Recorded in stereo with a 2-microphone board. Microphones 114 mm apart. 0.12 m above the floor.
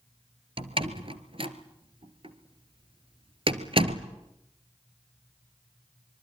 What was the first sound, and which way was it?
A door slam, 50° right (ahead or behind).